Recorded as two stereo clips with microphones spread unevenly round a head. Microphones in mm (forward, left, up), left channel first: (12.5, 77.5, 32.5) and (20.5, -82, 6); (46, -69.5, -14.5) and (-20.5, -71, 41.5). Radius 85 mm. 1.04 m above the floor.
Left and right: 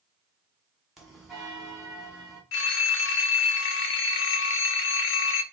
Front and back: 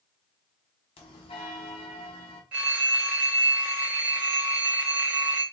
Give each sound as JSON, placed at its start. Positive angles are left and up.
{"t": 1.0, "sound": "a bell", "azimuth_deg": 5, "distance_m": 1.3}
{"t": 2.5, "sound": "a phone ringing", "azimuth_deg": 105, "distance_m": 0.6}